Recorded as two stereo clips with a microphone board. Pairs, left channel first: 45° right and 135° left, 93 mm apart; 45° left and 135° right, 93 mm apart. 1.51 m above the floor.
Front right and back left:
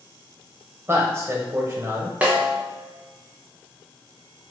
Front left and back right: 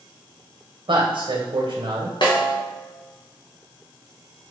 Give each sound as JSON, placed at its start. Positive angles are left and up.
{"t": 0.9, "sound": "a man speaking", "azimuth_deg": -160, "distance_m": 0.9}
{"t": 2.2, "sound": "a snare drum", "azimuth_deg": 65, "distance_m": 1.0}